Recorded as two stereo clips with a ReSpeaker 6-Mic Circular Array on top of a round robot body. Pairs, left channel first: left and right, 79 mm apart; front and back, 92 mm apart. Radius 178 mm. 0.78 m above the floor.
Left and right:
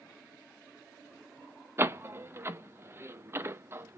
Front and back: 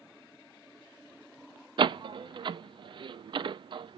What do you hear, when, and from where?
1.8 s a door slam: 150° right, 0.6 m